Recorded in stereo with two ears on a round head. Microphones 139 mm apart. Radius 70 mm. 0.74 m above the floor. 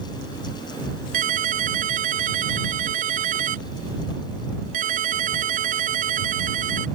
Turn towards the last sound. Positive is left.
turn(degrees=-55)  # may be behind; listen again after turning